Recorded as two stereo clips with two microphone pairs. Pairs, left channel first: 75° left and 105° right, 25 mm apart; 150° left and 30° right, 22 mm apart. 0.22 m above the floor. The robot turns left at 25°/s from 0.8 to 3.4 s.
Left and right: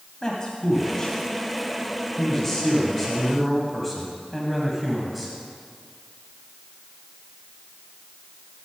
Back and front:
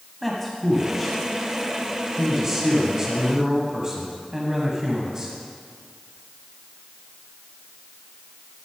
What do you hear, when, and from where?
0.2 s a man speaking: 55° left, 1.3 m; by 5.3 s 10° right, 1.3 m